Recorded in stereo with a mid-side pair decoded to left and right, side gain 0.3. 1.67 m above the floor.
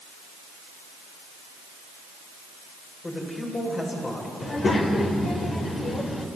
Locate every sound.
3.0 s a man speaking: 50° left, 8 m
4.4 s a child speaking: 60° left, 4 m